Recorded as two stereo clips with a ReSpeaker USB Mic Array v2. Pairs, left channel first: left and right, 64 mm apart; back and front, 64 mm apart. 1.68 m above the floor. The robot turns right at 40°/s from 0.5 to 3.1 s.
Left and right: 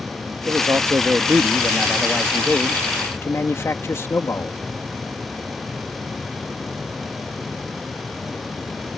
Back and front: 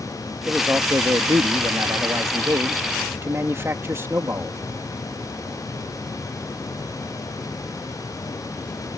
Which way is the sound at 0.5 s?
60° right.